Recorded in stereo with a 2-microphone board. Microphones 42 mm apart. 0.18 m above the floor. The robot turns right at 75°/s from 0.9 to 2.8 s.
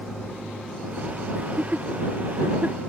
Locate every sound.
1.4 s laughter: 30° right (ahead or behind); by 2.8 s 35° right (ahead or behind)